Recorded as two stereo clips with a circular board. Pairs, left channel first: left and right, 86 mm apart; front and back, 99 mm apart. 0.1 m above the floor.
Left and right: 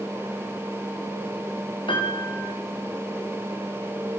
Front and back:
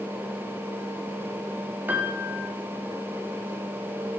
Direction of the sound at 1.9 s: 110° left.